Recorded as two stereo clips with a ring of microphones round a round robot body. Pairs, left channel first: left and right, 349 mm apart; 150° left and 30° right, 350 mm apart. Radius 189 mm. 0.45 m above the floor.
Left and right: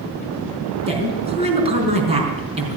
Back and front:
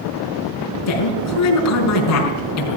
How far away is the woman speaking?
About 4.5 m.